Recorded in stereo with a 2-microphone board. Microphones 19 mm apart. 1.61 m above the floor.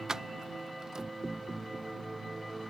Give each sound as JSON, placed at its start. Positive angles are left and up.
{"t": 0.1, "sound": "keys jangling", "side_deg": -30}